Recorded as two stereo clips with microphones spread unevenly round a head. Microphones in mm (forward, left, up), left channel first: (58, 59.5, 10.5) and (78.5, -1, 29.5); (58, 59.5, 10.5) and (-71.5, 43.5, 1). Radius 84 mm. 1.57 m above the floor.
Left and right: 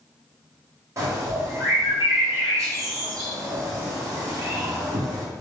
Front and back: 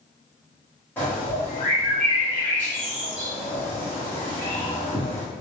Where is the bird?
65° right, 1.4 m.